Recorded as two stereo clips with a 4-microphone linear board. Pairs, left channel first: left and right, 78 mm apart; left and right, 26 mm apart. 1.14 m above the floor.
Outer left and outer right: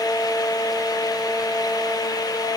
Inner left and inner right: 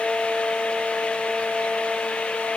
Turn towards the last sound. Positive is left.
No sound to turn to.